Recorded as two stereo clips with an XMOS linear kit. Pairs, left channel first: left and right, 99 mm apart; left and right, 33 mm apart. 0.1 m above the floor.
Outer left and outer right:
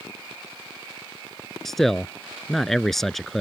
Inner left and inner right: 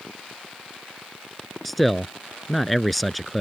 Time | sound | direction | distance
1.6 | a man speaking | 5° left (ahead or behind) | ?